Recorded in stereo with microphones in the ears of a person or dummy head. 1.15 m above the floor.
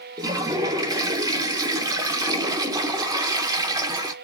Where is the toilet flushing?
20° right (ahead or behind), 0.7 m.